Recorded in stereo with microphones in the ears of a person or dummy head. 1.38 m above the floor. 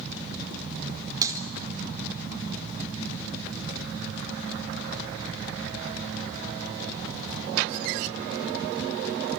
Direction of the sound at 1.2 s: 25° right (ahead or behind).